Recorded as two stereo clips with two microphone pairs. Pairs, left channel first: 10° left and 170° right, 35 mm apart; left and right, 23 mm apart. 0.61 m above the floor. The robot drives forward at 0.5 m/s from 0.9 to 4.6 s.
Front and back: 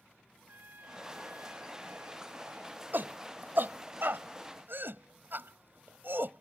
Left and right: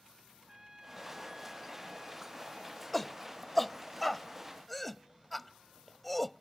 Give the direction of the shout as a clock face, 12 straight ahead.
6 o'clock.